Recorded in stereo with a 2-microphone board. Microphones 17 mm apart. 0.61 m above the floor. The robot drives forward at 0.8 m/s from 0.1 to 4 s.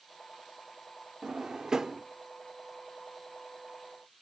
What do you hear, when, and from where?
1.2 s a drawer: 55° right (ahead or behind), 0.7 m; by 2.0 s 30° right (ahead or behind), 1.1 m